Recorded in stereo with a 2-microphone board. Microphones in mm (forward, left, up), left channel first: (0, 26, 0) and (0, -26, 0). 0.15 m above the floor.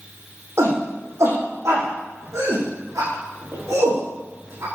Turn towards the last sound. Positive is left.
turn(degrees=-80)